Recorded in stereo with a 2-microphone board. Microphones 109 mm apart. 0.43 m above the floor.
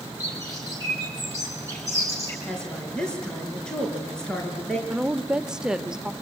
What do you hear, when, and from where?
0.2 s a bird: 25° left (ahead or behind), 5 m
2.5 s a woman speaking: 5° left (ahead or behind), 5.5 m
4.9 s a woman speaking: 5° right (ahead or behind), 1.1 m